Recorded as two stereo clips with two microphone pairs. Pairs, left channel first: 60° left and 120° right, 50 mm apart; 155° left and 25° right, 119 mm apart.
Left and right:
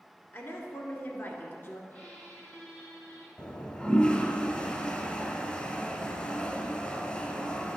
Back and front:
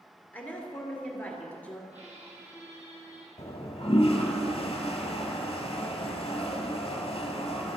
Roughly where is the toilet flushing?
Behind left.